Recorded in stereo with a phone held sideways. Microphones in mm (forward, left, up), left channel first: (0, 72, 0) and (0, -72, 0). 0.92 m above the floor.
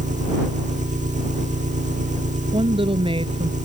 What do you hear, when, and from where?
0.0 s an engine running: 60° right (ahead or behind)
2.5 s a woman speaking: 40° right (ahead or behind)